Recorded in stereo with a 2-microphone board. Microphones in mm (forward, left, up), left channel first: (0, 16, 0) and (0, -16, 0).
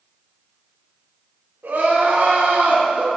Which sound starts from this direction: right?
Crying, at 1.6 s.